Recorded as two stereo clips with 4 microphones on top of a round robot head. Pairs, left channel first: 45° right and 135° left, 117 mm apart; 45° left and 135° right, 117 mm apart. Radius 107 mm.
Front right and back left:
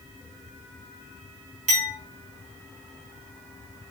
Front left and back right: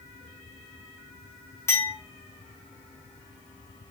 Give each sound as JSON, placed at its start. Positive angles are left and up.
{"t": 1.7, "sound": "a clink", "azimuth_deg": 115, "distance_m": 3.5}